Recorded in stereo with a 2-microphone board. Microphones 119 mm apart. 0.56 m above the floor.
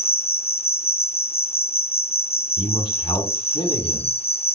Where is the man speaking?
45° left (ahead or behind), 4.5 m.